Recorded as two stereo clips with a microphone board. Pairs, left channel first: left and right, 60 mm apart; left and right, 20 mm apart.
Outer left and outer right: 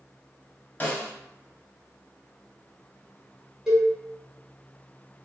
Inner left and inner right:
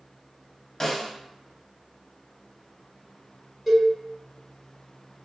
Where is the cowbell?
10° right (ahead or behind), 1.3 m.